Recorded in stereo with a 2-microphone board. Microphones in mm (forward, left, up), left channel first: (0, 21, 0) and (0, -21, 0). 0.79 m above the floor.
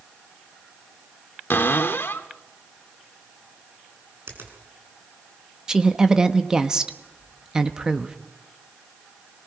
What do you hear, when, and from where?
1.5 s a cupboard door: 60° left (ahead or behind), 1.4 m
4.3 s a finger snap: 75° right (ahead or behind), 5.5 m
5.7 s a woman speaking: 15° right (ahead or behind), 1.2 m